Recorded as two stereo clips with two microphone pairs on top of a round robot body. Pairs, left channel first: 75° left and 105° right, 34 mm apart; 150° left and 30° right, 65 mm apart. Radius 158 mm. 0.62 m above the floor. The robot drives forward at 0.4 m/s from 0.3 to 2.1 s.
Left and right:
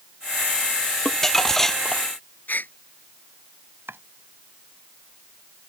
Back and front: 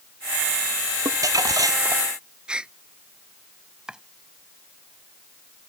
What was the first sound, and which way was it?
Crumpling, straight ahead.